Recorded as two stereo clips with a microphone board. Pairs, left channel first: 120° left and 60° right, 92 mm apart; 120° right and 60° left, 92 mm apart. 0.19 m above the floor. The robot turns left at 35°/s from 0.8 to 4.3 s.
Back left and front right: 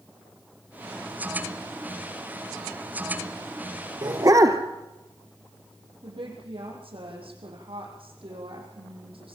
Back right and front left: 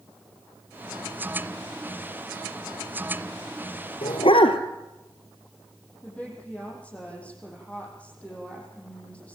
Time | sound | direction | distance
4.0 | a dog barking | 105° right | 2 m
6.0 | a woman speaking | 45° right | 7.5 m